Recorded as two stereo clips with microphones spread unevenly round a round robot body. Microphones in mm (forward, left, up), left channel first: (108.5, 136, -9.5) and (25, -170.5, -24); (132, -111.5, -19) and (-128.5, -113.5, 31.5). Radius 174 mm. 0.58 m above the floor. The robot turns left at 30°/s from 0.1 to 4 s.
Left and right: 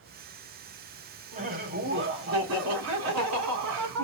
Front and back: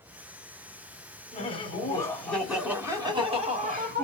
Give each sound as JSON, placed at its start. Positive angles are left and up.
{"t": 1.3, "sound": "laughter", "azimuth_deg": -45, "distance_m": 1.9}